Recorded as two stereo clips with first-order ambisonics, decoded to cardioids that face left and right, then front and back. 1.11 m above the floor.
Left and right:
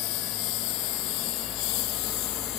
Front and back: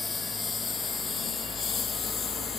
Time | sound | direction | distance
0.0 | a lawn mower | 75° left | ?